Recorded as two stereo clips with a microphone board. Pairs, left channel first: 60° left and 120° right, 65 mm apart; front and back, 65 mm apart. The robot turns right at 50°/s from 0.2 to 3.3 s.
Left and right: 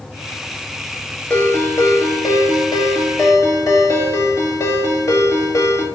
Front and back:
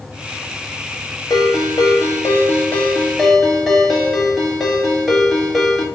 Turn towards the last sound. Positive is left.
turn(degrees=90)